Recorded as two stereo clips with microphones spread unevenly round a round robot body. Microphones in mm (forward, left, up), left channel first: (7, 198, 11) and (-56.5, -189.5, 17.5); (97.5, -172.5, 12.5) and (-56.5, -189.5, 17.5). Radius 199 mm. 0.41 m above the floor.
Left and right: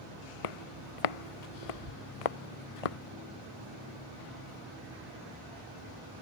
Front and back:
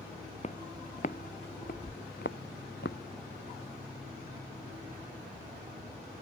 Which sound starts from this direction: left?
Footsteps, at 0.4 s.